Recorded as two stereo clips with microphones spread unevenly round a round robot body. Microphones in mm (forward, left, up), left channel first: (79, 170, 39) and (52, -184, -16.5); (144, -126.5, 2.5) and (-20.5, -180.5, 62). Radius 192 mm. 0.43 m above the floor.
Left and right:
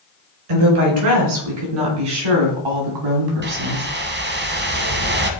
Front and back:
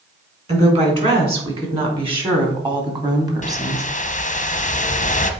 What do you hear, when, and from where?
0.5 s a woman speaking: 105° right, 4 m; by 3.9 s 85° right, 2.5 m
3.4 s a whoosh: 30° right, 1.1 m